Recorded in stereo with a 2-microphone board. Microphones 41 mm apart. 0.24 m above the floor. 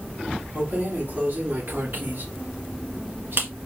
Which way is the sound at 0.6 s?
50° right (ahead or behind).